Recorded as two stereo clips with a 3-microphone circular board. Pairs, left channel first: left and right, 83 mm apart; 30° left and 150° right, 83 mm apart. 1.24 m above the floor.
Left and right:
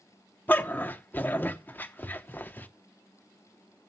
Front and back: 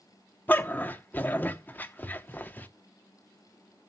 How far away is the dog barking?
About 0.8 m.